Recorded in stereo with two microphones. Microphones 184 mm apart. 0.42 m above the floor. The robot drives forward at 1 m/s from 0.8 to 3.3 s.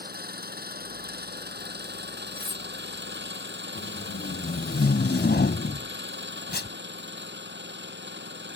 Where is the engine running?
60° right (ahead or behind); by 8.6 s 80° right.